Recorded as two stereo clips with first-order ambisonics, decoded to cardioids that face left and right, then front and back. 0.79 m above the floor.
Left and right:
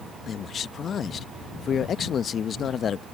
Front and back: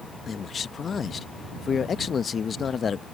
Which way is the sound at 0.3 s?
50° left.